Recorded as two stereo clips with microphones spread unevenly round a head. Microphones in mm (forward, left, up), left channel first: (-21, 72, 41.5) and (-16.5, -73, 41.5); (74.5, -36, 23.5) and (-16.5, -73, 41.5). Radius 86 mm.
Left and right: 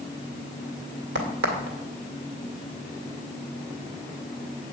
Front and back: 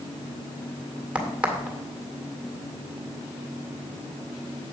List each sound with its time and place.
1.1 s a crack: 80° right, 2 m